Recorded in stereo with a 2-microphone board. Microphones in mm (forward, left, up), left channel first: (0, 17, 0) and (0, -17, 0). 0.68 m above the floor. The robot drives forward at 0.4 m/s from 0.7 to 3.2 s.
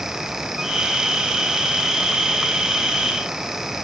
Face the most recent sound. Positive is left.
No sound to turn to.